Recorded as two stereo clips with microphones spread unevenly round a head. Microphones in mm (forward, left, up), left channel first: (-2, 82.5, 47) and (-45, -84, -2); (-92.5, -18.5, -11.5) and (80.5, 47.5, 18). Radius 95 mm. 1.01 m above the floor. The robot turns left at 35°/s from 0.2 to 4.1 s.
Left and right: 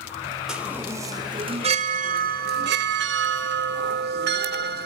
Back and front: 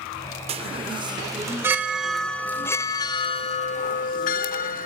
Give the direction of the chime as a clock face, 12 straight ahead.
12 o'clock.